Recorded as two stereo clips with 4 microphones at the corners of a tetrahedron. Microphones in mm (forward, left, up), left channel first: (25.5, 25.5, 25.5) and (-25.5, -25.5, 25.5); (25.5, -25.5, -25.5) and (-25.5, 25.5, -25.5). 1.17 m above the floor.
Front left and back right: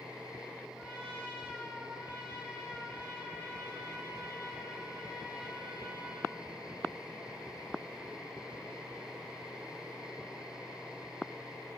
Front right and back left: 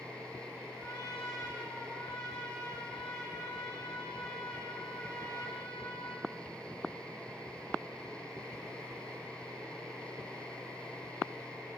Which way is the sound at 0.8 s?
75° right.